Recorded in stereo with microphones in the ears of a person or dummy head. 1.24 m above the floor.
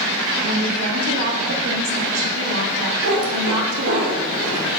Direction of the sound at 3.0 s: 65° right (ahead or behind).